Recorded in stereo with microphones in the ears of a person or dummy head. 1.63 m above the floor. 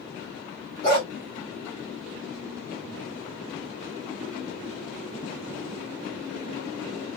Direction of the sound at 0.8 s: 25° left (ahead or behind).